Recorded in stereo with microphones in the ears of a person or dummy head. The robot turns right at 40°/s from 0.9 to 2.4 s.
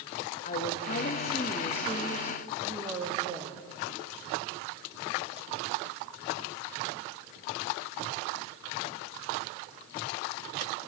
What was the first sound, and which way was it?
A woman speaking, 130° left.